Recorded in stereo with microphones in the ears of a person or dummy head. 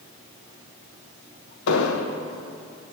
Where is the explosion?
75° left (ahead or behind), 1.1 m.